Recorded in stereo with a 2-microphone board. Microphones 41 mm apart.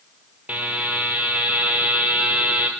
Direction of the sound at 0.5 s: 45° right (ahead or behind).